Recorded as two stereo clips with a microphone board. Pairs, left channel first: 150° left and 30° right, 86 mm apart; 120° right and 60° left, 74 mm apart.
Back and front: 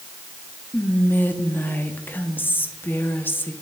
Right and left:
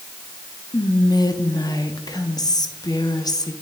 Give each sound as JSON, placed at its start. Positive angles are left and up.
{"t": 0.7, "sound": "whispering", "azimuth_deg": -145, "distance_m": 0.8}